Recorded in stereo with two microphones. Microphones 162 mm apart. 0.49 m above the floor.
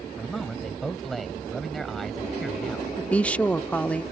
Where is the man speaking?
Centre (ahead or behind).